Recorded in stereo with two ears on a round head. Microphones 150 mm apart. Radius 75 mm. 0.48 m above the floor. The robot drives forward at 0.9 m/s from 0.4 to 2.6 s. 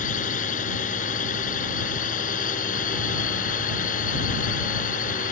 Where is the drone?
45° left (ahead or behind); by 5.3 s 50° left (ahead or behind).